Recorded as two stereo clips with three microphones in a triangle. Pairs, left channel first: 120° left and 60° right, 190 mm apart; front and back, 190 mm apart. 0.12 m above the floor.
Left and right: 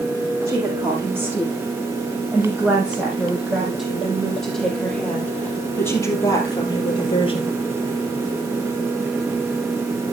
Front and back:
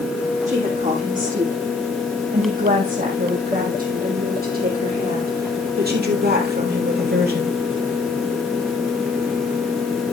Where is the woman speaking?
135° right, 7 m; by 7.6 s 175° left, 3 m.